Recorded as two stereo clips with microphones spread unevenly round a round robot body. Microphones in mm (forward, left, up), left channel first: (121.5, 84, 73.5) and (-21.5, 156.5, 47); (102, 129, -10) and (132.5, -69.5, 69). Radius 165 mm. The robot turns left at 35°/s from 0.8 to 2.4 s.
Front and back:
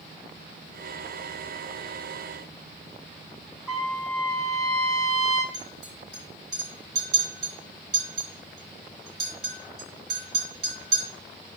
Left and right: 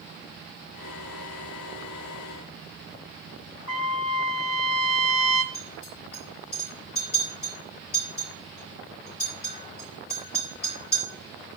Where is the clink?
165° left, 5 m.